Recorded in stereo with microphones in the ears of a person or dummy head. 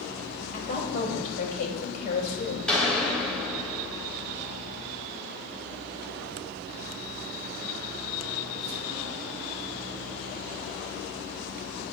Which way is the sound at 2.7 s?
10° left (ahead or behind).